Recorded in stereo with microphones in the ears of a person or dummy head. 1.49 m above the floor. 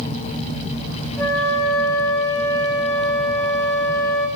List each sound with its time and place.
1.2 s a flute: 20° left (ahead or behind), 6 m